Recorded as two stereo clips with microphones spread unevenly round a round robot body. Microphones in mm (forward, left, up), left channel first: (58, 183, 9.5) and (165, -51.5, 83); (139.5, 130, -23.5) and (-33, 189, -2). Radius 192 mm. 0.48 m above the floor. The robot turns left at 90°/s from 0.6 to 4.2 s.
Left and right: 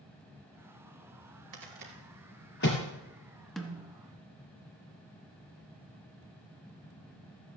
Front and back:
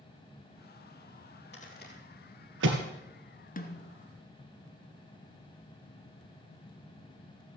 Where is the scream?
No scream in this recording.